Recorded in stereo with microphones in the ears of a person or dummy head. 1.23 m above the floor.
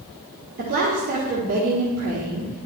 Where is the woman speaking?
45° right (ahead or behind), 1.4 m.